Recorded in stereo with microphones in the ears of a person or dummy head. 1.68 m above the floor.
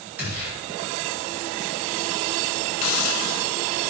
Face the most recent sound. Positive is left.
turn(degrees=75)  # may be behind; listen again after turning